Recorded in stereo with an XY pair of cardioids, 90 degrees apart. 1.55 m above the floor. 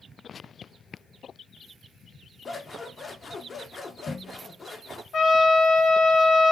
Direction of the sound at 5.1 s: 60° left.